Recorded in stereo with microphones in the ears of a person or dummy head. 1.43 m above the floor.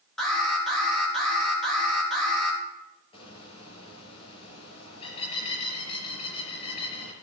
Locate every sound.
0.2 s an alarm: centre (ahead or behind), 4 m
3.1 s a bird: 30° left (ahead or behind), 4 m